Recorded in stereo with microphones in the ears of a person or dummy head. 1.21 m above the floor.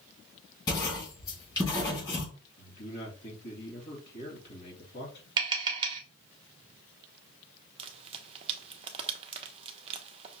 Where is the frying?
35° right (ahead or behind), 0.6 m.